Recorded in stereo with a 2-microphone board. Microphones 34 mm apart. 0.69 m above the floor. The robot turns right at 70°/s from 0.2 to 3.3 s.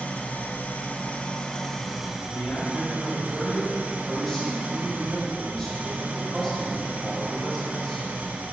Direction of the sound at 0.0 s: 60° left.